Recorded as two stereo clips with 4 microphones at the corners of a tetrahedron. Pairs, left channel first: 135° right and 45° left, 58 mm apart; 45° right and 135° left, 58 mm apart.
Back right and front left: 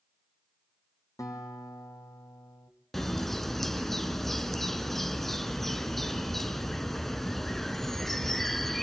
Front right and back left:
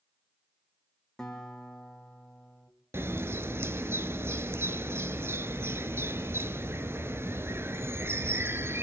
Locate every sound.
1.2 s a guitar: 125° right, 3 m
2.9 s a bird: 140° left, 0.9 m